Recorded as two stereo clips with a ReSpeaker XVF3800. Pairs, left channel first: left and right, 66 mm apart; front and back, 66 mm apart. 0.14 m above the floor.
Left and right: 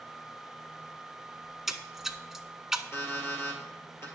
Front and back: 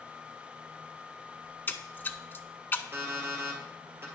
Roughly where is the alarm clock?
Behind left.